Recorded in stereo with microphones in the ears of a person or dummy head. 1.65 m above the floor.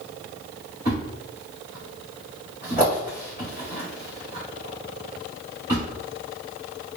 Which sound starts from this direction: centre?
A thud, at 0.8 s.